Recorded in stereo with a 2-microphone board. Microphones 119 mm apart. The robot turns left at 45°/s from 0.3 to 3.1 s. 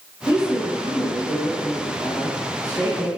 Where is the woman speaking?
140° left, 1.0 m; by 3.1 s 15° left, 1.0 m.